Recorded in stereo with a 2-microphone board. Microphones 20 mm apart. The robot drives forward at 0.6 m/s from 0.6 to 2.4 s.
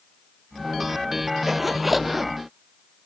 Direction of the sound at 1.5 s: 15° right (ahead or behind).